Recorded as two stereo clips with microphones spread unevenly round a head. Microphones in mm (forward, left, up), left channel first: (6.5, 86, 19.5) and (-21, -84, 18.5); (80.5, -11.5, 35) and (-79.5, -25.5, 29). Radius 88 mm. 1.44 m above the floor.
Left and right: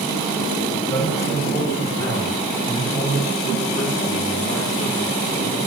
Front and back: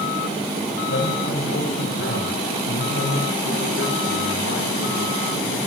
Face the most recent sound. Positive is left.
turn(degrees=5)